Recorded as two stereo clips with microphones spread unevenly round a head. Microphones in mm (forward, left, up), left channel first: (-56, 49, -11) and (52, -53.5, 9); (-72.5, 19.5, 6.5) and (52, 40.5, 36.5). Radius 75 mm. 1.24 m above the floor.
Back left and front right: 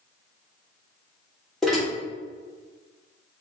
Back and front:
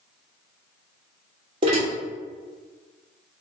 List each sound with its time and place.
1.6 s dishes clattering: 45° left, 1.0 m